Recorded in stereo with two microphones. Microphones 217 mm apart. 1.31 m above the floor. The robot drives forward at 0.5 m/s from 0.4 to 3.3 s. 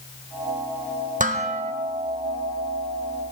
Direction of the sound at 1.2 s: 35° right (ahead or behind).